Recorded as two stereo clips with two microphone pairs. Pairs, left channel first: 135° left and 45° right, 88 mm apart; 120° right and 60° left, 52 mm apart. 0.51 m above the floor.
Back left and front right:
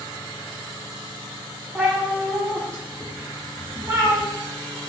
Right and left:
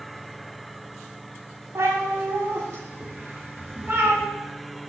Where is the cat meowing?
30° left, 2 m; by 4.2 s 5° left, 3 m.